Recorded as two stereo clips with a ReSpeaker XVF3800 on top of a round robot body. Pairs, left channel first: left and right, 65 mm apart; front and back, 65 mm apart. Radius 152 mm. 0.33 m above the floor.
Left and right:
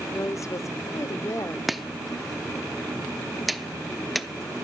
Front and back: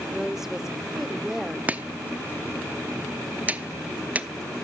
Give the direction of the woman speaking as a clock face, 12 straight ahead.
9 o'clock.